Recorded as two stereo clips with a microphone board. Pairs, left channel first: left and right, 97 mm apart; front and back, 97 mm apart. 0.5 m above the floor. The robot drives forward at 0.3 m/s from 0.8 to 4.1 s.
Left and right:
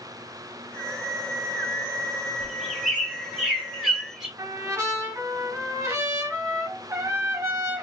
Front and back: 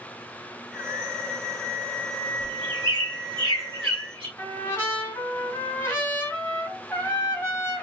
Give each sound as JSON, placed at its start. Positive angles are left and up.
{"t": 2.4, "sound": "a bird", "azimuth_deg": -175, "distance_m": 1.7}
{"t": 4.4, "sound": "a trumpet", "azimuth_deg": -55, "distance_m": 1.6}